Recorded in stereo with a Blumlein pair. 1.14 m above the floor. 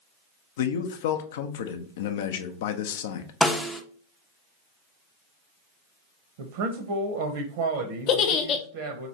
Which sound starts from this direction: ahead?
A snare drum, at 3.4 s.